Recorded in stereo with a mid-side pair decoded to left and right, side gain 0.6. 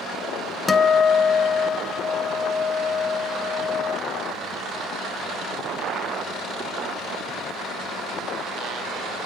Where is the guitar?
20° left, 1.3 m.